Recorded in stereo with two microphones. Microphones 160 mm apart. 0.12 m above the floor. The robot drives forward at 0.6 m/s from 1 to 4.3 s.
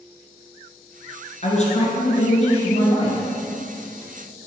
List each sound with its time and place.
1.4 s a man speaking: 40° left (ahead or behind), 1.6 m; by 3.2 s 35° left (ahead or behind), 1.9 m